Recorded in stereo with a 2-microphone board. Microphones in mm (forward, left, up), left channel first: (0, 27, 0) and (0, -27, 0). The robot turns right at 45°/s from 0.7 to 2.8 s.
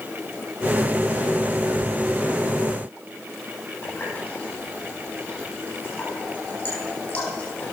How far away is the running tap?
About 9.5 m.